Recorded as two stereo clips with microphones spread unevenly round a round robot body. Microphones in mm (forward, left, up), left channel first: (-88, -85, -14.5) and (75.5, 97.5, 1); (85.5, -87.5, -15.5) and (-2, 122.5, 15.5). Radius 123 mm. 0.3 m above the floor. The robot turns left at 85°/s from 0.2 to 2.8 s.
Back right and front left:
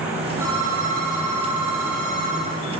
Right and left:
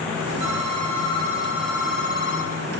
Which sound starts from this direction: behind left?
A phone ringing, at 0.4 s.